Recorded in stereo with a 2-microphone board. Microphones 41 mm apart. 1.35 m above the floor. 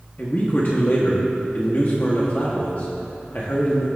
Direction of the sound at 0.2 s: 45° left (ahead or behind).